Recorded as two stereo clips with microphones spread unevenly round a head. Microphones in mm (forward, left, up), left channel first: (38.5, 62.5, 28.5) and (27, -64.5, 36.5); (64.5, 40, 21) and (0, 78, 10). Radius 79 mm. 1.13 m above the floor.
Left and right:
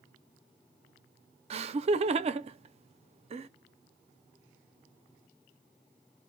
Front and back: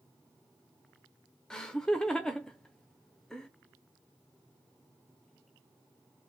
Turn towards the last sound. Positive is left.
turn(degrees=-120)